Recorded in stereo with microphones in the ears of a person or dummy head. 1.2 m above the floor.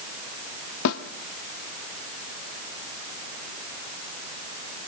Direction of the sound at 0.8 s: 70° left (ahead or behind).